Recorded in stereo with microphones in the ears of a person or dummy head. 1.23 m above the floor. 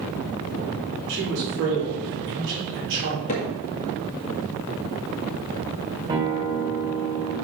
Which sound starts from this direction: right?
A man speaking, at 1.1 s.